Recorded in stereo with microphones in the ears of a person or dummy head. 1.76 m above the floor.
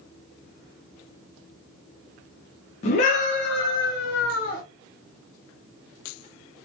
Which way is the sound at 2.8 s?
40° left (ahead or behind).